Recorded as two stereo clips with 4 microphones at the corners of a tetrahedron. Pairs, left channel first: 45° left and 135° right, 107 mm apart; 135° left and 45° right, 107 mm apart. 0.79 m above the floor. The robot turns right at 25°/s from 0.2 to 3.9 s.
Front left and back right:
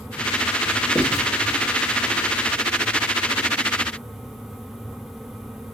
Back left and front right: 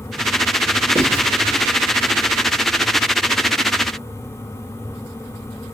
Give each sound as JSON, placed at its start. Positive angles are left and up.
{"t": 0.9, "sound": "writing", "azimuth_deg": -55, "distance_m": 1.6}